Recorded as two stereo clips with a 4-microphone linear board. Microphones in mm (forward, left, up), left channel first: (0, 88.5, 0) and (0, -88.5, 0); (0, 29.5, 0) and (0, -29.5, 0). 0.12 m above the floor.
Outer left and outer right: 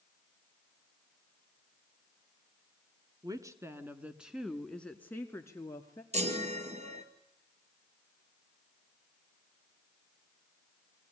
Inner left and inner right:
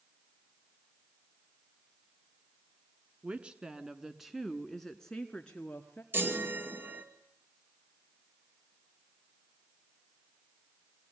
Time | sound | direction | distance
3.2 | a woman speaking | 20° right (ahead or behind) | 1.4 m
6.1 | a chime | 40° right (ahead or behind) | 2.5 m